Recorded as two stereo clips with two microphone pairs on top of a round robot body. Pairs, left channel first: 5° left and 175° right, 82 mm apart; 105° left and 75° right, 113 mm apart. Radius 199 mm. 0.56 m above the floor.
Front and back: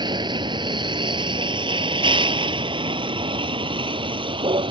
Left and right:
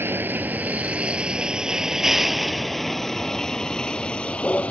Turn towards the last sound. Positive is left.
turn(degrees=-175)